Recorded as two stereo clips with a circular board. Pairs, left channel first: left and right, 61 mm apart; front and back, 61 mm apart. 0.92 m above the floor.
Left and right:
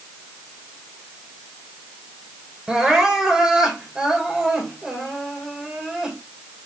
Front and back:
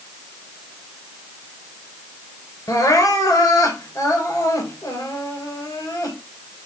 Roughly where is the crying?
Ahead.